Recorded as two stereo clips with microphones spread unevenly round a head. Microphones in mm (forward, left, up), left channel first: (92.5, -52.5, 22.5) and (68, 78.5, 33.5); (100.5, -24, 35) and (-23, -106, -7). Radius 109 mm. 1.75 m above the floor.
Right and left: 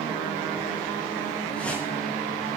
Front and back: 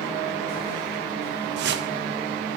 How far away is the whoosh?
About 0.6 m.